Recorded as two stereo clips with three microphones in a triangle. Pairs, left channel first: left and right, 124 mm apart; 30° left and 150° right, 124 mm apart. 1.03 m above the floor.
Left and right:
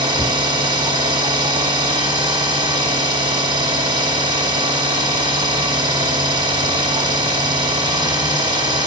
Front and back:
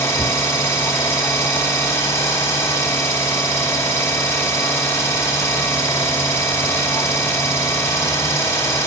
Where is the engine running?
40° right, 0.9 m.